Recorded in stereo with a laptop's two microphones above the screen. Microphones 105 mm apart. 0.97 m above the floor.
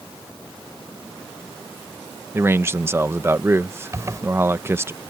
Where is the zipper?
30° right (ahead or behind).